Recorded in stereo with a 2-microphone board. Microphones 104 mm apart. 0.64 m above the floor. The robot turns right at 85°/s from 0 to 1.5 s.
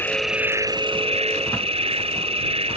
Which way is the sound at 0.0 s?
160° left.